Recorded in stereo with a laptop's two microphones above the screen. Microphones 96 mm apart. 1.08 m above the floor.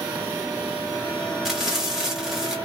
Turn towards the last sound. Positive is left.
turn(degrees=-5)  # may be behind; listen again after turning